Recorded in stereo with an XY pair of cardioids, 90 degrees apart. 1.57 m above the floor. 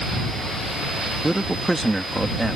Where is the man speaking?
15° right.